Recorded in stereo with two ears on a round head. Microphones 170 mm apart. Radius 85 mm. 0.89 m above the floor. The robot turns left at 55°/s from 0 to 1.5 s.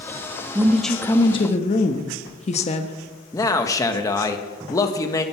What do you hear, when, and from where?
0.6 s a woman speaking: 165° right, 0.9 m; by 3.0 s 140° left, 0.9 m
3.3 s a man speaking: 15° left (ahead or behind), 1.0 m